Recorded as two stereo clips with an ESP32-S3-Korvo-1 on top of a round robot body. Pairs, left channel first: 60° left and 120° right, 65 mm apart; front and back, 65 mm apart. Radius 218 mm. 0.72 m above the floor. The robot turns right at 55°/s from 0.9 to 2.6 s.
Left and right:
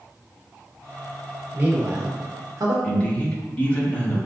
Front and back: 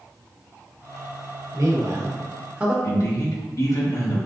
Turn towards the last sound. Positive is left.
turn(degrees=-5)